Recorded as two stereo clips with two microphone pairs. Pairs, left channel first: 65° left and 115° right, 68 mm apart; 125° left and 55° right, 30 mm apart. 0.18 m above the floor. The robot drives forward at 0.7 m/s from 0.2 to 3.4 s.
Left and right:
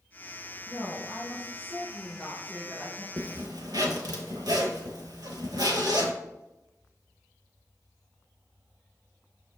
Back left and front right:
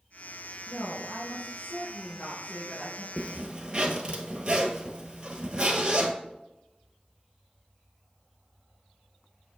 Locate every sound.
0.7 s a woman speaking: 100° left, 2 m; by 3.1 s 140° left, 3 m
3.2 s a zipper: 105° right, 0.7 m; by 6.1 s 115° right, 0.8 m